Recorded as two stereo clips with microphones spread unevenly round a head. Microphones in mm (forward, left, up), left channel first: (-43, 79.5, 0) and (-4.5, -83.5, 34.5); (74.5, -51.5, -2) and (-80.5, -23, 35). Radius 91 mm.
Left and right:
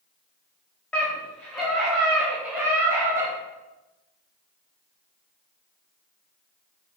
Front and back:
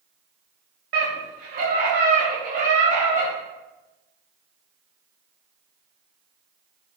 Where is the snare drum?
I don't hear a snare drum.